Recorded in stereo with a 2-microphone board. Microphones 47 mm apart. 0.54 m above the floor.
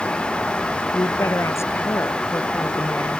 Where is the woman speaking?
75° left (ahead or behind).